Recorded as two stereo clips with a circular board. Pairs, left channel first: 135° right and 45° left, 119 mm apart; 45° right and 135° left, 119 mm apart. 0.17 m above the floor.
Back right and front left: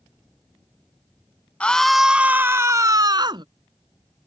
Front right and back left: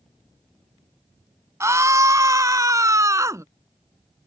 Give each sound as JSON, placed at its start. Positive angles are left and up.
{"t": 1.6, "sound": "a scream", "azimuth_deg": 160}